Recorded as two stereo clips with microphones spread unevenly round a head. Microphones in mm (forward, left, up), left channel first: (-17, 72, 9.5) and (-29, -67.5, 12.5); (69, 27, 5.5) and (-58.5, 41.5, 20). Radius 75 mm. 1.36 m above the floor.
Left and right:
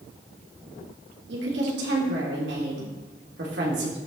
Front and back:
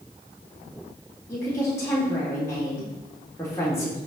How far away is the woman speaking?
About 3 m.